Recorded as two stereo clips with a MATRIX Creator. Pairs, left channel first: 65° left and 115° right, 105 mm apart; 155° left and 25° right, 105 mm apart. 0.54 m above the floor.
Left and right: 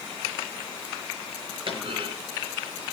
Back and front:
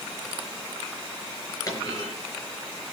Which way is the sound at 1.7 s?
145° right.